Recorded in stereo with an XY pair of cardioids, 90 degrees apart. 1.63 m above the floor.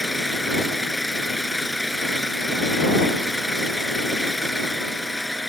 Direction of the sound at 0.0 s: 5° left.